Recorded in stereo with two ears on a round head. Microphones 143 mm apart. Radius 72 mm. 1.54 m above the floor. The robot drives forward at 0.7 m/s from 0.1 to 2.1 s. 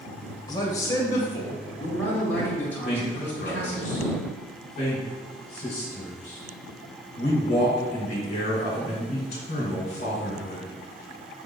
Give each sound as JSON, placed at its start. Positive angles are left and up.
{"t": 0.5, "sound": "a man speaking", "side_deg": 25, "distance_m": 1.2}
{"t": 2.8, "sound": "a man speaking", "side_deg": 45, "distance_m": 1.9}